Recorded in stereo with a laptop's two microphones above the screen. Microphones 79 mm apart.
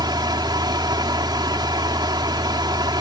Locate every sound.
0.0 s a fan: 70° right (ahead or behind)